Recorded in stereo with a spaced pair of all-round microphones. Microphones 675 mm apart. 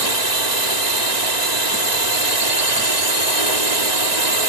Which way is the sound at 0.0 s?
75° right (ahead or behind).